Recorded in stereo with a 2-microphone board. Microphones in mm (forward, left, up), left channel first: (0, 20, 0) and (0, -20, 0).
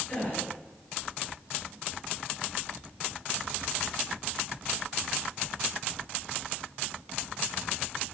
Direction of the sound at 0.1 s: 35° left (ahead or behind).